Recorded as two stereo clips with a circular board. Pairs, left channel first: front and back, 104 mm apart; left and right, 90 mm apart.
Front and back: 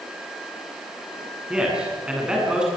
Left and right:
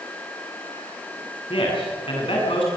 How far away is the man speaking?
About 8.5 m.